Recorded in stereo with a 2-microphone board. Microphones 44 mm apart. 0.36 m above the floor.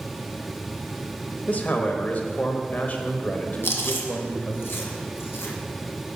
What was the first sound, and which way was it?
A man speaking, 45° left (ahead or behind).